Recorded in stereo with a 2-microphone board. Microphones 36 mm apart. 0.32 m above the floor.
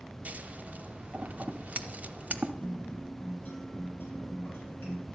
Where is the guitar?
65° left (ahead or behind), 4.5 m.